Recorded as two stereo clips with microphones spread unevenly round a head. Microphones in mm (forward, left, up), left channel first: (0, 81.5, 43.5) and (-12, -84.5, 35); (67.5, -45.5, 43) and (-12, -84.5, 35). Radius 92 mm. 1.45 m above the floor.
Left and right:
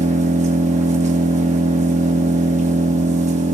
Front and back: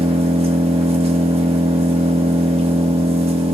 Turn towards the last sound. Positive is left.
turn(degrees=-145)